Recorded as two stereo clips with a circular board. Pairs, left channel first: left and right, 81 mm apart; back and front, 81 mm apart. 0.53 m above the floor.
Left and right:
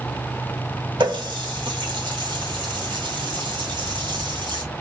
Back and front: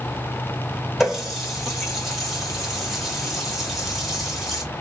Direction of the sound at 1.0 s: 90° right.